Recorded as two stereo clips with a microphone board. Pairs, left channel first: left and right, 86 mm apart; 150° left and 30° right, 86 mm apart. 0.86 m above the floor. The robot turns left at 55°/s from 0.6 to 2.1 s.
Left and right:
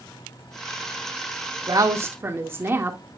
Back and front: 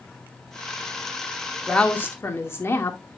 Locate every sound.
1.7 s a woman speaking: 125° right, 1.9 m; by 3.0 s 150° right, 1.9 m